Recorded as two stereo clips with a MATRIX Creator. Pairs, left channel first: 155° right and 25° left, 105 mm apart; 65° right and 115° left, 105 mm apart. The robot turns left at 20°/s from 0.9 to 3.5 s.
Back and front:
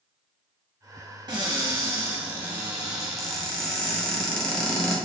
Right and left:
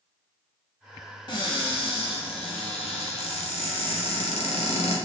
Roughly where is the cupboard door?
Ahead right.